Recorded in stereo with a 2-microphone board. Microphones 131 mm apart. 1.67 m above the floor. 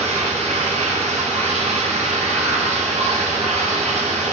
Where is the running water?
55° right (ahead or behind), 0.8 m.